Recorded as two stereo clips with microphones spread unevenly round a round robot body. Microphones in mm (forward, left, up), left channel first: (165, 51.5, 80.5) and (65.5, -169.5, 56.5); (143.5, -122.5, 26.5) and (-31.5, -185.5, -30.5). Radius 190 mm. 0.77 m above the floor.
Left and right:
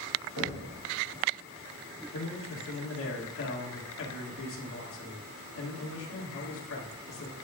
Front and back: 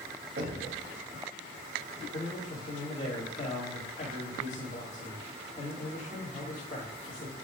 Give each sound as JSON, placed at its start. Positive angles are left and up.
{"t": 0.4, "sound": "knocking", "azimuth_deg": -135, "distance_m": 3.0}
{"t": 2.1, "sound": "a man speaking", "azimuth_deg": 95, "distance_m": 1.8}